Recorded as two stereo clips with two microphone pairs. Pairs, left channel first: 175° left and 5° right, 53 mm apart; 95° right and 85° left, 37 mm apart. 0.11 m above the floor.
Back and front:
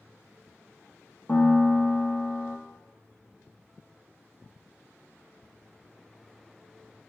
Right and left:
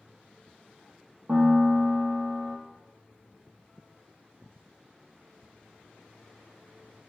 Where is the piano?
120° left, 0.7 m.